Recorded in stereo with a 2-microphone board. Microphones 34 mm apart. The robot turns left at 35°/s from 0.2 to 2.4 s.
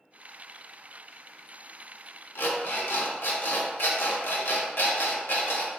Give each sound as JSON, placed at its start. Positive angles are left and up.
{"t": 2.4, "sound": "an alarm clock", "side_deg": 75, "distance_m": 0.6}